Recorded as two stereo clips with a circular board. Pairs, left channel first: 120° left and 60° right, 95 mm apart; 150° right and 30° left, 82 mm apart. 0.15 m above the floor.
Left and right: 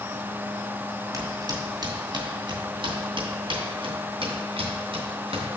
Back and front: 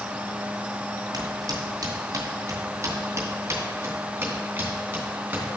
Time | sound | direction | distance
1.1 | footsteps | 10° right | 2 m